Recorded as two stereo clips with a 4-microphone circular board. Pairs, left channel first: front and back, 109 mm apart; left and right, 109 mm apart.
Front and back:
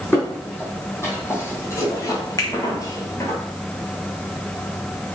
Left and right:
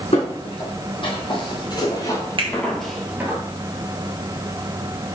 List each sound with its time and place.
0.1 s footsteps: 70° left, 2.5 m; by 3.4 s 40° right, 1.0 m
2.4 s a finger snap: 55° right, 1.0 m